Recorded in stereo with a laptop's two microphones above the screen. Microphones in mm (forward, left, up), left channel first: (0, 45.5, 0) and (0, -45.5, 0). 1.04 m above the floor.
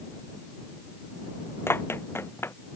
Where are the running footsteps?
25° left (ahead or behind).